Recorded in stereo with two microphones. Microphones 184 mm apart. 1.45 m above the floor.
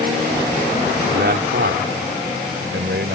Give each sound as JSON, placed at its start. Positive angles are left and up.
{"t": 1.1, "sound": "a man speaking", "side_deg": -65}